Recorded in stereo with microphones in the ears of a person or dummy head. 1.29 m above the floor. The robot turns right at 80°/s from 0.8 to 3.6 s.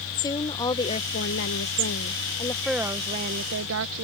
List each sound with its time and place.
0.2 s a woman speaking: 25° left; by 4.0 s 110° right